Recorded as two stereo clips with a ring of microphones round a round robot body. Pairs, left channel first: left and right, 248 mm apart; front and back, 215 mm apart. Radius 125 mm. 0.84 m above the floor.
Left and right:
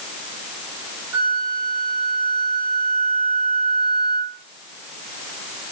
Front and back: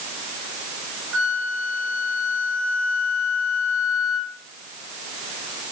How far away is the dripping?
No dripping in this recording.